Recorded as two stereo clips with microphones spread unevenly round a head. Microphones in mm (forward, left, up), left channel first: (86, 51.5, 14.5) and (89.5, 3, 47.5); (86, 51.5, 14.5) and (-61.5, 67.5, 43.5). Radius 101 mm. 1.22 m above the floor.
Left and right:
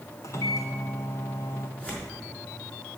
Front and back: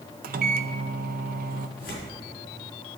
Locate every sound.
0.2 s a microwave: 155° left, 0.6 m
1.8 s tearing paper: 20° left, 4.5 m